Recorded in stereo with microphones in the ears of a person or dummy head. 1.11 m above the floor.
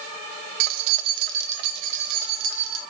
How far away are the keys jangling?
About 0.7 m.